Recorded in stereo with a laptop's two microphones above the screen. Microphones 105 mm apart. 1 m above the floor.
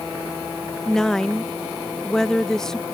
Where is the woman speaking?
5° left (ahead or behind).